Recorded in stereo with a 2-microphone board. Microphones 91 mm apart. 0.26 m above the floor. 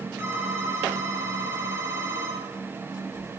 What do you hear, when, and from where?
0.2 s a phone ringing: 25° right (ahead or behind), 3.5 m